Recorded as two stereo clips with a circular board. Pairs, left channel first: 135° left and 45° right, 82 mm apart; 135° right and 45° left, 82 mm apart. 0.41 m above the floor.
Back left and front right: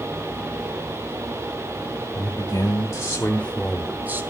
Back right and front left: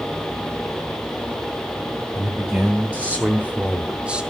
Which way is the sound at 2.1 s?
115° left.